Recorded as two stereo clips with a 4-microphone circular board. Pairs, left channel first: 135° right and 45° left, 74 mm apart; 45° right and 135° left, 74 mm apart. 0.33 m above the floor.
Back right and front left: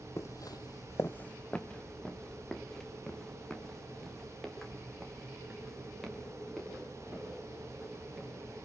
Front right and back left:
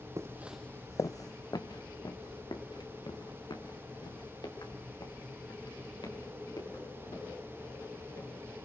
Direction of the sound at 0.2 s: Straight behind.